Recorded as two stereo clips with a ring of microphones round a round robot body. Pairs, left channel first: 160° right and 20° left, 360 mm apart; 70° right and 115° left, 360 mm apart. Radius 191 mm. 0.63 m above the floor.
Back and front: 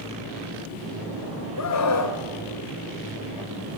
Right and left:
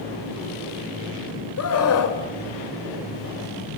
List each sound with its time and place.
1.6 s a scream: 115° right, 3.5 m